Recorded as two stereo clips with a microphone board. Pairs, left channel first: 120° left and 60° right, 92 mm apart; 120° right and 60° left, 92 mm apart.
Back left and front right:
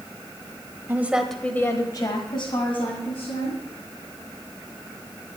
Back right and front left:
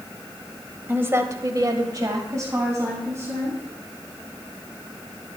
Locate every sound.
0.9 s a woman speaking: straight ahead, 1.5 m; by 3.6 s 125° left, 3.5 m